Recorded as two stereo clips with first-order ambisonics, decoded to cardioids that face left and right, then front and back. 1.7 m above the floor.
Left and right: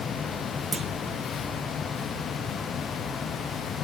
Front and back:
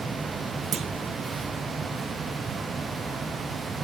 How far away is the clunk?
About 0.7 m.